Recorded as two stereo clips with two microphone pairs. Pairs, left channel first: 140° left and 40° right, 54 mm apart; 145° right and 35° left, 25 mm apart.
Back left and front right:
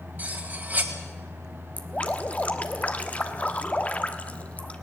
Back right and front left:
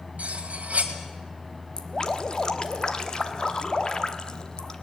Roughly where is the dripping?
Behind.